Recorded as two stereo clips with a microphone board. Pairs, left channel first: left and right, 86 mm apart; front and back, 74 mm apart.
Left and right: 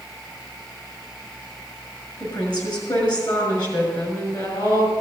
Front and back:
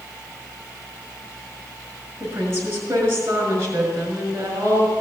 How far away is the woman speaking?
About 5.5 m.